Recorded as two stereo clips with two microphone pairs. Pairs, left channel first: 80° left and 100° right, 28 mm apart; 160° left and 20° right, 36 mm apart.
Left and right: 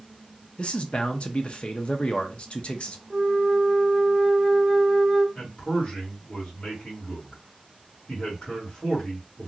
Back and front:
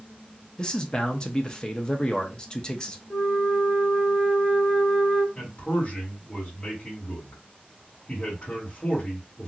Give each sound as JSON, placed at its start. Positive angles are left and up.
{"t": 0.6, "sound": "a man speaking", "azimuth_deg": 105, "distance_m": 0.6}
{"t": 3.1, "sound": "a flute", "azimuth_deg": 160, "distance_m": 1.1}
{"t": 5.3, "sound": "a man speaking", "azimuth_deg": 115, "distance_m": 1.7}